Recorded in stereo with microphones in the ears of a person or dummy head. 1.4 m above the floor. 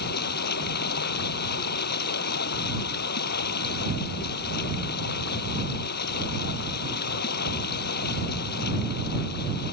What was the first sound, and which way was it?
Running water, 60° left (ahead or behind).